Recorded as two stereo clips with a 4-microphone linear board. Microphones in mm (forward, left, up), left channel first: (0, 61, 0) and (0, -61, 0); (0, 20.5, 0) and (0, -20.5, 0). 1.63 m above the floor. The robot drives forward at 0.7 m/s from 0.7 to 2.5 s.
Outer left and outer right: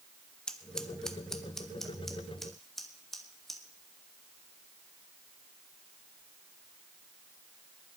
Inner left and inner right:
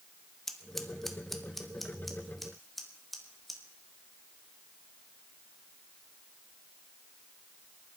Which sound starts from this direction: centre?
Scissors, at 0.5 s.